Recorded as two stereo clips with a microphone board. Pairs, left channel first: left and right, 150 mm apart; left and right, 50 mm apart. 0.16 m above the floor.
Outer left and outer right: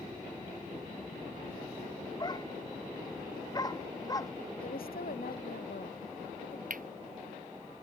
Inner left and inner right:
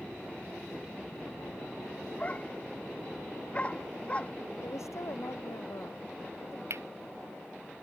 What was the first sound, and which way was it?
A dog barking, 30° left (ahead or behind).